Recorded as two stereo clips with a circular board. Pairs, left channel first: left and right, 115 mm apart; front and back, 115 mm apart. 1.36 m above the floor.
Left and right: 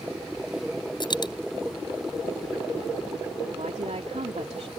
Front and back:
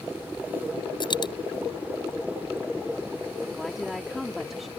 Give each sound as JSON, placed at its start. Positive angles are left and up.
{"t": 1.0, "sound": "a dropped coin", "azimuth_deg": 45}
{"t": 3.5, "sound": "a woman speaking", "azimuth_deg": -90}